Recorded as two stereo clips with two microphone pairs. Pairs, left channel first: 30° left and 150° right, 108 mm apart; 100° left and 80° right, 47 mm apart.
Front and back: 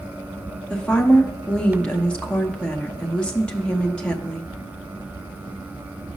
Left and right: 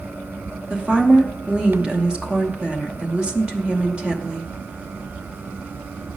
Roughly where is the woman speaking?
Ahead right.